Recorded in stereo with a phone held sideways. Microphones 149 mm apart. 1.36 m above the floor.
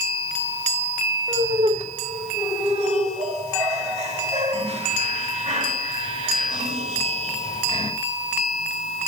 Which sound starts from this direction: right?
Laughter, at 1.3 s.